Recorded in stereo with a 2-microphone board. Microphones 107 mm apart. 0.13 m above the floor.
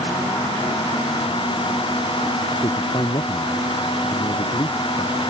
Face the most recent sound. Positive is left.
turn(degrees=45)  # may be behind; listen again after turning